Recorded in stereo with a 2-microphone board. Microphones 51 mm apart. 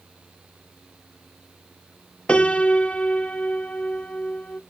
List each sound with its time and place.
2.3 s a piano: 20° left (ahead or behind), 1.0 m